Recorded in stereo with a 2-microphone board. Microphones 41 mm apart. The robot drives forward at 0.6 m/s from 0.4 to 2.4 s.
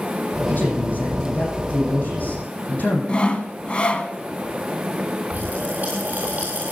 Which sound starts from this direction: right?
A pop, at 5.3 s.